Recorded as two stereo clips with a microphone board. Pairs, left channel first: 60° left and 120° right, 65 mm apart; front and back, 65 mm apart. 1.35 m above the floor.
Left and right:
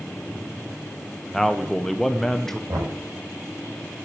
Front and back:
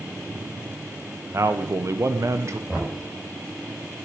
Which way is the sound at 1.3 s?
145° left.